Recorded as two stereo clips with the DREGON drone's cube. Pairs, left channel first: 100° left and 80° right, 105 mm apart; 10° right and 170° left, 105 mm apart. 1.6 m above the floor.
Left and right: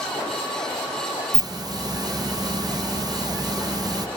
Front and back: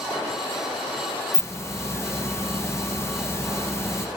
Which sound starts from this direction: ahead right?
A hiss, at 1.3 s.